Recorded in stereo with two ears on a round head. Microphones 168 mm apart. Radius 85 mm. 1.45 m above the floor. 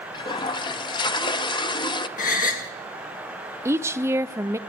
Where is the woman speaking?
15° right (ahead or behind), 0.5 m.